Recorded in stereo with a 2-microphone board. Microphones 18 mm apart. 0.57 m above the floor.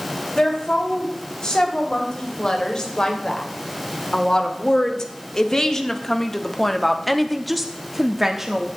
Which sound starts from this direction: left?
A woman speaking, at 0.3 s.